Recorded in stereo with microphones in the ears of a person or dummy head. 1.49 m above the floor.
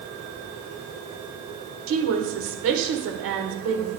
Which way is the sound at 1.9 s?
85° right.